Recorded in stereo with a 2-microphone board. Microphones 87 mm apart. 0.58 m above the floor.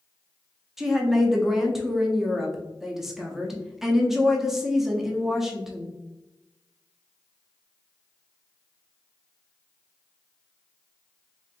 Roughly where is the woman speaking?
Centre.